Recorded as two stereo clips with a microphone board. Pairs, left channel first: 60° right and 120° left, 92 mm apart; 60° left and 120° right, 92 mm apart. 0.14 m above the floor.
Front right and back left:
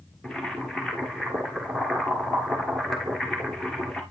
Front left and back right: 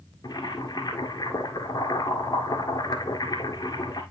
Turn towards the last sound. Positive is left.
turn(degrees=25)